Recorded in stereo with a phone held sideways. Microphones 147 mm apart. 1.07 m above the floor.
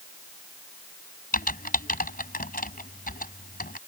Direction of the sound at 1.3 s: 80° left.